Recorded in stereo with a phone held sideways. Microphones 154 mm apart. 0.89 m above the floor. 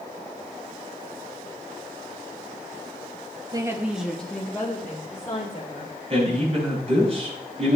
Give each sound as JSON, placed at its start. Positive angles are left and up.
{"t": 3.5, "sound": "a woman speaking", "side_deg": -25, "distance_m": 0.9}
{"t": 6.1, "sound": "a man speaking", "side_deg": -45, "distance_m": 6.5}